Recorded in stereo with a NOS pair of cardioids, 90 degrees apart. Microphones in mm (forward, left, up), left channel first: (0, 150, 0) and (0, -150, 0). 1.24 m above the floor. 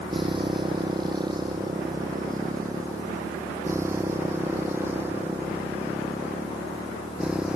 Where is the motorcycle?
15° right; by 7.6 s 5° right.